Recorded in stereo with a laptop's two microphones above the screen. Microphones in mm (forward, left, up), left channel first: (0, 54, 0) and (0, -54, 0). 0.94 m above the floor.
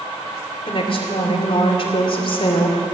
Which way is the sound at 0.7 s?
55° left (ahead or behind).